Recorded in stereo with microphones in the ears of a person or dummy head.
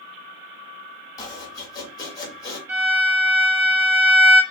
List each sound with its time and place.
1.2 s chopping: 25° left (ahead or behind), 1.8 m
2.7 s a violin: 10° right (ahead or behind), 1.1 m